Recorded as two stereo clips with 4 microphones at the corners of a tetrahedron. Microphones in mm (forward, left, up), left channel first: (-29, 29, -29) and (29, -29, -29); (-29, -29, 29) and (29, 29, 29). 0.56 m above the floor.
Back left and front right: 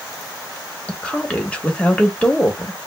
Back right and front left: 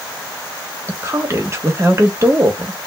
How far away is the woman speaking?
About 1.1 m.